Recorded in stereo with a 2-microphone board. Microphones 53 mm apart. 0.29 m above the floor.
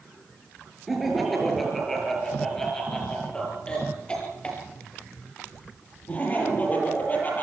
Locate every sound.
0.9 s laughter: centre (ahead or behind), 6 m; by 7.4 s 30° left (ahead or behind), 9 m